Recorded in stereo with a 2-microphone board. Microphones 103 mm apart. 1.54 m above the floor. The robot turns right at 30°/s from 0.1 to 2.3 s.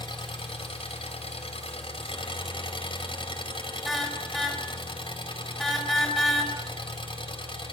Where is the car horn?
Centre (ahead or behind), 4 m.